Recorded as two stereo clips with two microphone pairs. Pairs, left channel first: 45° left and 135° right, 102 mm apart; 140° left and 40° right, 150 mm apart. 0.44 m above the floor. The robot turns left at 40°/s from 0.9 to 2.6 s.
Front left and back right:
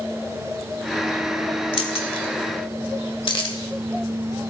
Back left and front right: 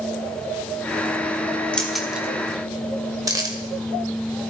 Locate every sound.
1.7 s keys jangling: 55° left, 1.2 m; by 4.5 s 20° left, 1.2 m